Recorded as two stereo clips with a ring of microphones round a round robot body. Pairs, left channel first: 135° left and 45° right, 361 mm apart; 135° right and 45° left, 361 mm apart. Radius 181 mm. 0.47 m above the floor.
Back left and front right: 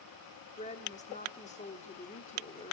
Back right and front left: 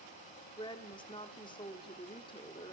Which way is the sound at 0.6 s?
170° left.